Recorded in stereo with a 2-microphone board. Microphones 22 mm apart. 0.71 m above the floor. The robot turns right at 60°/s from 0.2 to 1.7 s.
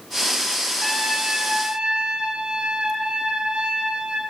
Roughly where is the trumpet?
Behind.